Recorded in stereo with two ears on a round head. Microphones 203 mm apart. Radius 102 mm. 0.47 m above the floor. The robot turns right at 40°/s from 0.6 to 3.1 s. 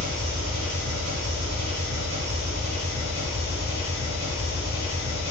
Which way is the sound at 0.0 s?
115° right.